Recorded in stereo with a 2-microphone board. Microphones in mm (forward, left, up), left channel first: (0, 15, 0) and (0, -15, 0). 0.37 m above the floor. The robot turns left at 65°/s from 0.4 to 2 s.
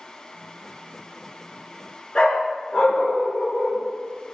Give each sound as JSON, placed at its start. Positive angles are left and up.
{"t": 2.1, "sound": "a dog barking", "side_deg": 35, "distance_m": 2.5}